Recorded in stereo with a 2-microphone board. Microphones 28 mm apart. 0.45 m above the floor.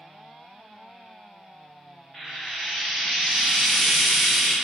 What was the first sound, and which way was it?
Frying, centre (ahead or behind).